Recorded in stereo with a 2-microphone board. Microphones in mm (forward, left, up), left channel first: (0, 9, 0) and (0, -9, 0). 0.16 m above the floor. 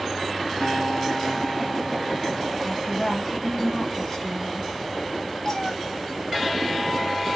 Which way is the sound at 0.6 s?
10° right (ahead or behind).